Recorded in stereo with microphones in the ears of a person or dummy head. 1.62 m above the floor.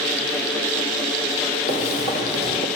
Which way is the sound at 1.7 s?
30° left (ahead or behind).